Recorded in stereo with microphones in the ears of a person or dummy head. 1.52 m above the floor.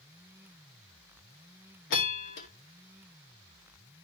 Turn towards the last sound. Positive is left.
turn(degrees=70)  # may be behind; listen again after turning